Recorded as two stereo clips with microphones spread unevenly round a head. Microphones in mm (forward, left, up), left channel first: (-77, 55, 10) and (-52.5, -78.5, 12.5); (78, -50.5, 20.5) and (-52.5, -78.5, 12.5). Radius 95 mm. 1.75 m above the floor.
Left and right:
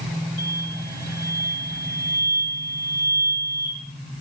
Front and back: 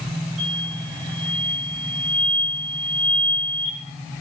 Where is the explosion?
135° right, 9.5 m.